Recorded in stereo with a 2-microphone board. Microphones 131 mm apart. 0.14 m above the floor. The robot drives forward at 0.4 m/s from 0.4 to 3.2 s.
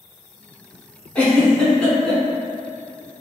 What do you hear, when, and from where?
1.1 s a giggle: 10° left (ahead or behind), 0.8 m; by 2.2 s 5° left (ahead or behind), 1.0 m